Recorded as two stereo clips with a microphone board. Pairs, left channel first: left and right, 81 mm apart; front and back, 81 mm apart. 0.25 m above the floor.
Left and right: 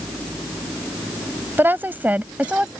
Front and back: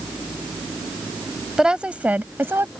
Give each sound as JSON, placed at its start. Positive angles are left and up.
{"t": 1.6, "sound": "a woman speaking", "azimuth_deg": -105}